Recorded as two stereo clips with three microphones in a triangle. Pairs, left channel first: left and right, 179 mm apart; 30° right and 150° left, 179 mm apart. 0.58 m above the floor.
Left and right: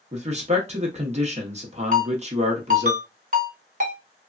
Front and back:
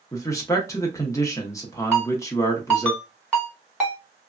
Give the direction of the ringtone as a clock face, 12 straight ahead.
4 o'clock.